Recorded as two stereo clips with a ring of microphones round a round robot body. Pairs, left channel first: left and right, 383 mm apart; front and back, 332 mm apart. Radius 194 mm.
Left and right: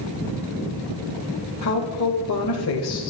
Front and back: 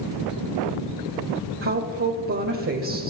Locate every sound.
1.6 s a woman speaking: 135° left, 2 m